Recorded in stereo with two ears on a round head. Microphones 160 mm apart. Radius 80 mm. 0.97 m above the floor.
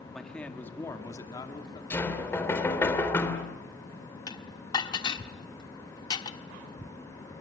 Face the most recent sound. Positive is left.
turn(degrees=25)  # may be behind; listen again after turning